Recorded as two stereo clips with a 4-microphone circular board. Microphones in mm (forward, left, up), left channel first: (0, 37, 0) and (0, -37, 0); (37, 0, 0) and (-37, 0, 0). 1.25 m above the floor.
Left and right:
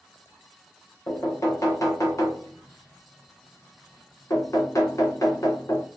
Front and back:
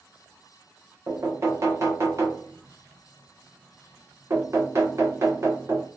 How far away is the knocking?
About 0.9 m.